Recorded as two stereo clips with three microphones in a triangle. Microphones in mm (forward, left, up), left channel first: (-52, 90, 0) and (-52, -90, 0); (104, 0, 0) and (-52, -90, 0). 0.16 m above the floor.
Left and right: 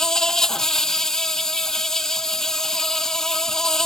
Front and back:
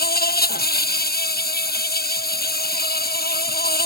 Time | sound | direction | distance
0.0 | an insect | 5° left | ?